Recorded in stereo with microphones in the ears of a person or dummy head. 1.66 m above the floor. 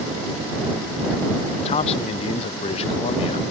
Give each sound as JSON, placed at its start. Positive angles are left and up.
{"t": 1.6, "sound": "a man speaking", "side_deg": 35}